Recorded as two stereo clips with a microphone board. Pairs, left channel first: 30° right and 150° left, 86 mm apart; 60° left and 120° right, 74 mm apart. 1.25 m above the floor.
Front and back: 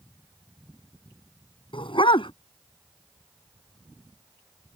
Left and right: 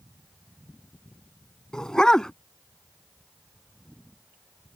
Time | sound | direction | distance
1.7 | a dog barking | 20° right | ?